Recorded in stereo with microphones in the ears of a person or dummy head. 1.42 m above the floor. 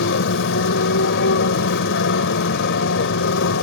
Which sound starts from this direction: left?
A motorcycle, at 0.0 s.